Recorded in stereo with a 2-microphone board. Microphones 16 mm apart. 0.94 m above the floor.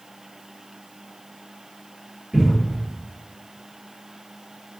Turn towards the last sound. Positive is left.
turn(degrees=-60)  # may be behind; listen again after turning